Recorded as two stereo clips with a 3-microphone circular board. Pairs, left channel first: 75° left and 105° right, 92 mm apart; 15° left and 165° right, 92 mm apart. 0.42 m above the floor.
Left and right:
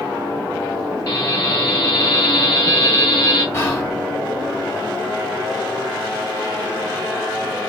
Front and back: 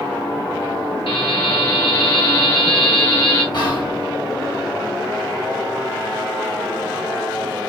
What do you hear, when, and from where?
1.1 s a buzzer: 25° left, 3.5 m
3.5 s whispering: 20° left, 2.5 m